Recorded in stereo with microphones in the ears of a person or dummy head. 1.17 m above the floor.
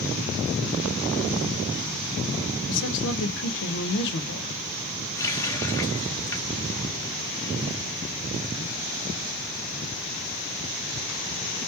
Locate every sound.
2.7 s a woman speaking: 65° left (ahead or behind), 0.8 m
5.2 s a running tap: 20° left (ahead or behind), 0.7 m